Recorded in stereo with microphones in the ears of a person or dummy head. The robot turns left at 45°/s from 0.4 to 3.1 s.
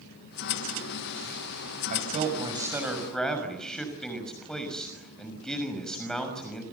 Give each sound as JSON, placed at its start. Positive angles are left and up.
{"t": 1.9, "sound": "a man speaking", "azimuth_deg": -125, "distance_m": 6.0}